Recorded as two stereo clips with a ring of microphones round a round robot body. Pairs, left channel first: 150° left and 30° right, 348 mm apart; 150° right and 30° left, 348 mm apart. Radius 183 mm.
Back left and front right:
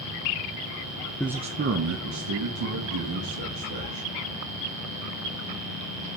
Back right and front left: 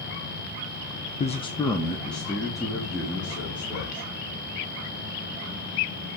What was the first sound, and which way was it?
A man speaking, 130° right.